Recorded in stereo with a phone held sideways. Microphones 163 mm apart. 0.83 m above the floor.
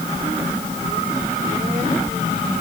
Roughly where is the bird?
No bird in this recording.